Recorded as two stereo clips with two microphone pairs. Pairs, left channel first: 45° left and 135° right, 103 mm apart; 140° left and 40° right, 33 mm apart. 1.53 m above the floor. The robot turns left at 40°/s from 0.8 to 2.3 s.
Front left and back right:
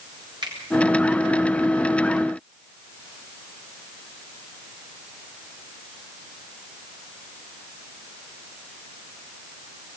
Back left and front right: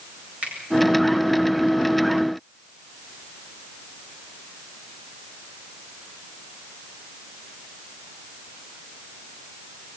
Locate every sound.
0.4 s a finger snap: 90° right, 8 m